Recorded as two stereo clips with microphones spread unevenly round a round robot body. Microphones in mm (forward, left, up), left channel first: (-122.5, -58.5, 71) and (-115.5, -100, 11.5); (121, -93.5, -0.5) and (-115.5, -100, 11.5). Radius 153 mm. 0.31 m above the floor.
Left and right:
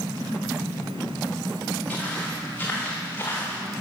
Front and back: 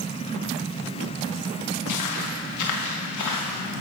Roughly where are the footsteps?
Ahead.